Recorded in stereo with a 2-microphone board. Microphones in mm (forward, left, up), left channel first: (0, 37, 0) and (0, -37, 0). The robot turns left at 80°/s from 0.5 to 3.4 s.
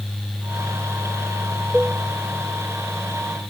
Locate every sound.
1.7 s a cowbell: 15° right (ahead or behind), 0.8 m; by 2.0 s 30° right (ahead or behind), 0.8 m